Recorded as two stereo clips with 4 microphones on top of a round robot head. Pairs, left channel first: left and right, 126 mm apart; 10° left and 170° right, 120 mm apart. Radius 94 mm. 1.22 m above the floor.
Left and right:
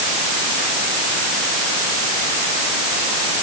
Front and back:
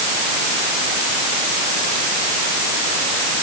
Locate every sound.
Only background noise.